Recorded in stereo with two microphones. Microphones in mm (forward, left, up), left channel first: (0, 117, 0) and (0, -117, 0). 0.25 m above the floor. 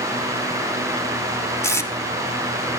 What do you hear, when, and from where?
1.6 s tape being pulled: 10° left (ahead or behind), 0.8 m